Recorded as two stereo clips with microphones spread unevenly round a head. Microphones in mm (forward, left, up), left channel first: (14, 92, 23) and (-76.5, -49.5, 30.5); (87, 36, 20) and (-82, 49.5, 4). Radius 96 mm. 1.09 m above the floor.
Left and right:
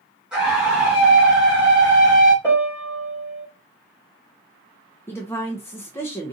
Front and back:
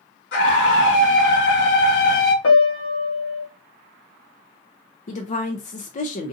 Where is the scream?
40° right, 1.5 m.